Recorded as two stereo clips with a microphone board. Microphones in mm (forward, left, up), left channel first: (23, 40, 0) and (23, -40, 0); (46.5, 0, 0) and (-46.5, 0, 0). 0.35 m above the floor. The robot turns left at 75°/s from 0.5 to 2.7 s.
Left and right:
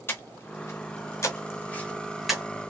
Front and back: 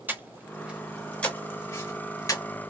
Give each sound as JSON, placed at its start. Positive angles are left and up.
{"t": 0.1, "sound": "breathing", "azimuth_deg": 125, "distance_m": 0.8}